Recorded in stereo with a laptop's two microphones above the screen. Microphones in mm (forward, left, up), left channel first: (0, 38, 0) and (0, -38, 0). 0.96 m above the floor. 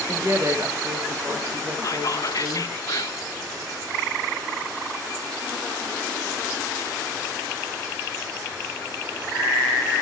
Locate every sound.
0.1 s a woman speaking: 40° right (ahead or behind), 1.2 m
1.8 s whispering: 50° left (ahead or behind), 0.8 m